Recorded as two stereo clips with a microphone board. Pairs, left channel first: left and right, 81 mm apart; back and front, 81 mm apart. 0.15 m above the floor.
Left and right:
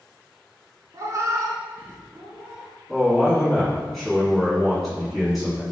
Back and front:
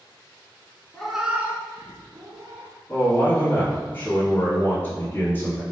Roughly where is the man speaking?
Behind.